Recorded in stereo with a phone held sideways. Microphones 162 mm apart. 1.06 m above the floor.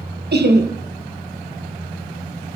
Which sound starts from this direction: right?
Laughter, at 0.3 s.